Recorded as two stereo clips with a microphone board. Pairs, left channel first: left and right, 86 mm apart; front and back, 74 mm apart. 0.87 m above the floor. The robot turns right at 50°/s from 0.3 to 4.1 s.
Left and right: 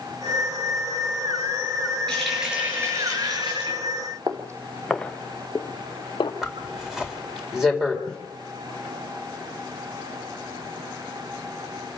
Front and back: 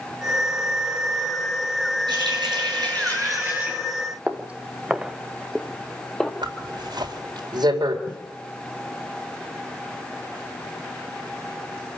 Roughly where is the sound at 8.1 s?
Ahead.